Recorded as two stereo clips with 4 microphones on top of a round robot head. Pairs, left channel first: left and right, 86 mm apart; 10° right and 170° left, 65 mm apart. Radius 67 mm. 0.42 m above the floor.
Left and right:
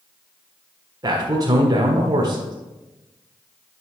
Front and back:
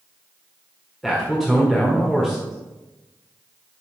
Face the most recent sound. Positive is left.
turn(degrees=-95)